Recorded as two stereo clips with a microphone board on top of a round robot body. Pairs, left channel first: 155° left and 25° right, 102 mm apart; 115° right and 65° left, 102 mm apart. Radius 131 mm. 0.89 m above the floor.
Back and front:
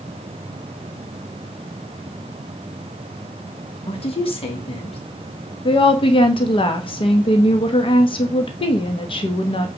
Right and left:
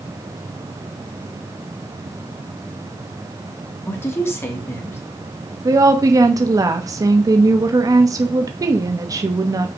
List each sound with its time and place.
3.9 s a woman speaking: straight behind, 2.5 m
5.7 s a woman speaking: 125° left, 1.1 m